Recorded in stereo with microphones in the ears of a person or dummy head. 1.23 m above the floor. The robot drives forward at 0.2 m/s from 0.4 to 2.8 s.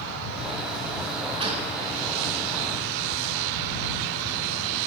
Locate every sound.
1.4 s a gunshot: 35° right (ahead or behind), 4.5 m